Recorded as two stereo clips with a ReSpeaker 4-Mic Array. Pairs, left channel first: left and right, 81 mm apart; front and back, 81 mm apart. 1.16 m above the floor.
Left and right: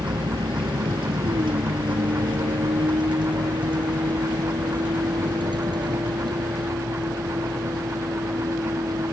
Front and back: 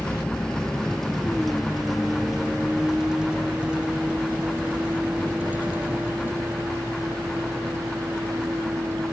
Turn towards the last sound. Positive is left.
turn(degrees=-125)